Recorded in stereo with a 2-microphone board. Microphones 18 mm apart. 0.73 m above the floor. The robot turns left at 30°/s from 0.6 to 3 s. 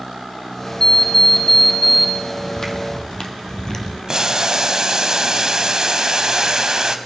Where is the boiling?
35° right (ahead or behind), 0.9 m.